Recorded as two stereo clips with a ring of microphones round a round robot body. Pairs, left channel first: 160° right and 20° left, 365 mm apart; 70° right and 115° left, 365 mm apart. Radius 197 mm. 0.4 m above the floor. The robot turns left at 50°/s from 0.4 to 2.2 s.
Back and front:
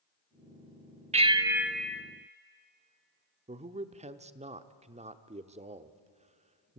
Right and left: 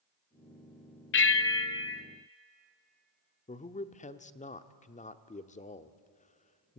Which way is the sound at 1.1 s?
40° right.